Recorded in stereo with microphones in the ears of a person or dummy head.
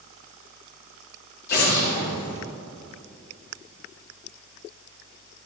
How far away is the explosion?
About 3 m.